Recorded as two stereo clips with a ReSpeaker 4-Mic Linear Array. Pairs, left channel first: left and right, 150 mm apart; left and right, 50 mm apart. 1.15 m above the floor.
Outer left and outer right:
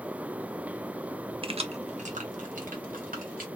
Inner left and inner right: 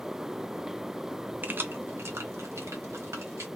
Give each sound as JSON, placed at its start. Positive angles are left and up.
{"t": 1.4, "sound": "keys jangling", "side_deg": -35, "distance_m": 0.5}